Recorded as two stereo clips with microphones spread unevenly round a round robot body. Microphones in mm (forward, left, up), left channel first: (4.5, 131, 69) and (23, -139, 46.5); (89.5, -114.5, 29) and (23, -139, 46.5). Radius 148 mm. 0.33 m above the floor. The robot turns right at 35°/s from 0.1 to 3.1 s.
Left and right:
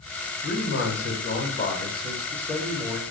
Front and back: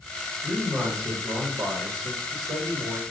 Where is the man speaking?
110° left, 1.2 m; by 3.0 s 160° right, 1.2 m.